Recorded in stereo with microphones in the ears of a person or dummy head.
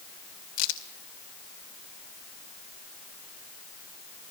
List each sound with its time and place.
0.6 s a crack: 70° left (ahead or behind), 2.5 m